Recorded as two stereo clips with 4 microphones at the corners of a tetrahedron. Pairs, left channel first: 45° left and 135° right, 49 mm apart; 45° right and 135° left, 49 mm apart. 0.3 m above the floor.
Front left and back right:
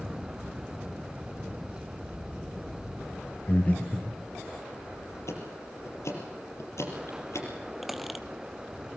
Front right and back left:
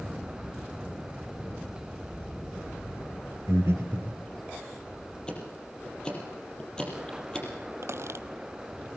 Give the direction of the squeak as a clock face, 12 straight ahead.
7 o'clock.